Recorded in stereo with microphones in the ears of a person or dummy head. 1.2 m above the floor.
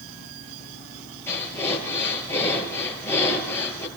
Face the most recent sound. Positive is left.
turn(degrees=15)  # may be behind; listen again after turning